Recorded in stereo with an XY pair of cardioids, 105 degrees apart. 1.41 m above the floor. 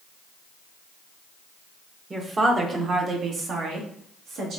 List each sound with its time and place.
2.1 s a woman speaking: 25° right, 1.1 m; by 4.6 s 75° right, 2 m